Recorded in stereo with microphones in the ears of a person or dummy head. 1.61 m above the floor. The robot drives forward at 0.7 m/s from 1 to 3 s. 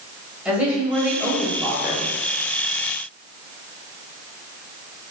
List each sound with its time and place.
0.5 s a woman speaking: 5° right (ahead or behind), 1.3 m; by 2.1 s 10° right (ahead or behind), 0.6 m